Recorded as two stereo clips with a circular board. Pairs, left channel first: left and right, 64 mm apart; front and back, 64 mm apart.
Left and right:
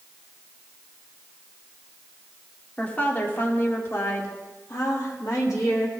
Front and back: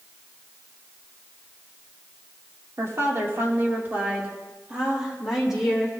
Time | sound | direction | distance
2.8 | a woman speaking | 150° left | 1.5 m